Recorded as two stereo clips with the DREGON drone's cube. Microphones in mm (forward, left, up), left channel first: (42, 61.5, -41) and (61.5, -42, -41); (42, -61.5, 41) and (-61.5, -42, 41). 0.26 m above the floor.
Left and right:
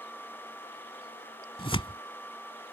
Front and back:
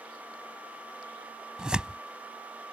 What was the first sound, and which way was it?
Tearing paper, 90° left.